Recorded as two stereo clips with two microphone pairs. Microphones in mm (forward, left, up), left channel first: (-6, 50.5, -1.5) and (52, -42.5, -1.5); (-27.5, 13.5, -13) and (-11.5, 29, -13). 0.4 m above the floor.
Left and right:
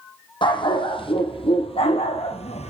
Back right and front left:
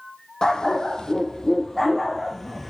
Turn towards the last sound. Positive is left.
turn(degrees=135)